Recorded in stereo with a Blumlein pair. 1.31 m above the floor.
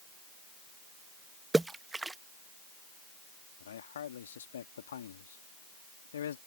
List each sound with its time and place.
1.5 s a splash: 5° right
3.6 s a man speaking: 65° left